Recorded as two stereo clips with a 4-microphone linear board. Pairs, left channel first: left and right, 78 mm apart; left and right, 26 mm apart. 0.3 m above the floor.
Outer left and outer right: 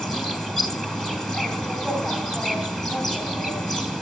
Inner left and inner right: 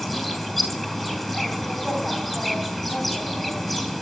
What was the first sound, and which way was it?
An insect, 5° left (ahead or behind).